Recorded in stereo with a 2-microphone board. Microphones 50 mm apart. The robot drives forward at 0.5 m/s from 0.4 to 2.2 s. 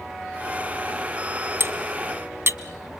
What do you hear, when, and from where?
1.6 s cutlery clinking: 45° right (ahead or behind), 1.0 m